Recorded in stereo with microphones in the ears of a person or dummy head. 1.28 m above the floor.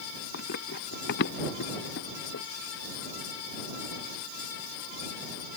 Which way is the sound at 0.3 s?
55° left (ahead or behind).